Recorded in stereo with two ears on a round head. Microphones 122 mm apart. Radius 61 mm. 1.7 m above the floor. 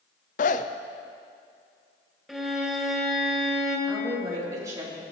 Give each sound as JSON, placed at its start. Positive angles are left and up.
{"t": 0.4, "sound": "a zipper", "side_deg": 60, "distance_m": 0.6}
{"t": 2.3, "sound": "a violin", "side_deg": 0, "distance_m": 2.5}
{"t": 3.9, "sound": "a woman speaking", "side_deg": -25, "distance_m": 4.0}